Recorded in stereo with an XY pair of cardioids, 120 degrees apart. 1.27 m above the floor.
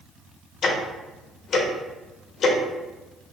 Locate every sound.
0.6 s ticking: 55° left, 0.9 m